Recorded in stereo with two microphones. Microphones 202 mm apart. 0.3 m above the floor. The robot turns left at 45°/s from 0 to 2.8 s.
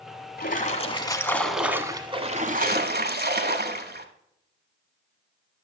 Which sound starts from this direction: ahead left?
A splash, at 0.4 s.